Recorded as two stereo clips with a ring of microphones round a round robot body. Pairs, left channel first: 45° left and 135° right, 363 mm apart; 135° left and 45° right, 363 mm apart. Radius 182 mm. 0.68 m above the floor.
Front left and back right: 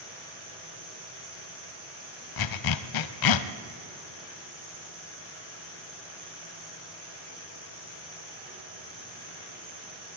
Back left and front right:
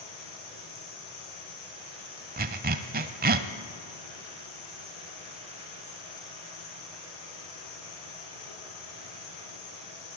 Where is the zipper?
20° left, 0.8 m.